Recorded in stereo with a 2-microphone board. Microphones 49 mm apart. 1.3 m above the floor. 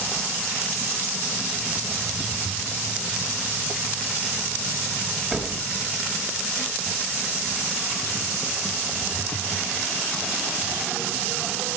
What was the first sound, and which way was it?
A door slam, 10° right (ahead or behind).